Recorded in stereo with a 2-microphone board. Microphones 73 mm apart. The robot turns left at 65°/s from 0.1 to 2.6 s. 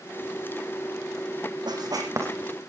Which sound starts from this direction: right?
Writing, at 1.7 s.